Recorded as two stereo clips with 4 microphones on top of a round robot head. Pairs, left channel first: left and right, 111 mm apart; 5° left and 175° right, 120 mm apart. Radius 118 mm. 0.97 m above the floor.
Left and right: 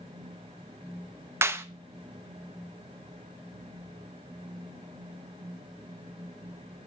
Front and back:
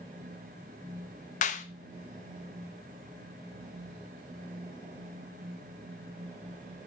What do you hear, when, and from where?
1.4 s a clap: 20° right, 0.7 m